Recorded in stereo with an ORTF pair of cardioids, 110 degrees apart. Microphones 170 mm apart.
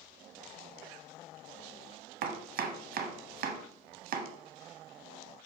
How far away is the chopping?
About 1.0 m.